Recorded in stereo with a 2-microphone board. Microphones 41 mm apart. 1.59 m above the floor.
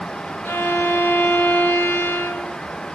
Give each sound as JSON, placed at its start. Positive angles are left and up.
{"t": 0.5, "sound": "a violin", "side_deg": 65, "distance_m": 3.0}